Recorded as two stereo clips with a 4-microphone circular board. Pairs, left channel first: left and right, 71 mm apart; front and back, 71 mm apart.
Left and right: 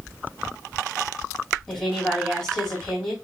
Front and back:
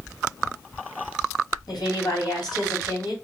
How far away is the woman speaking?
About 3.5 m.